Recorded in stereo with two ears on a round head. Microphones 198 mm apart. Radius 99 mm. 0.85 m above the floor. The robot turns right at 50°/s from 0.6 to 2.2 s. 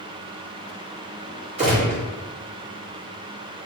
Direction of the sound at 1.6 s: 30° right (ahead or behind).